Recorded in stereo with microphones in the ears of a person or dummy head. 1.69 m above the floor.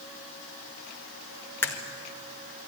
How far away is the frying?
I don't hear frying.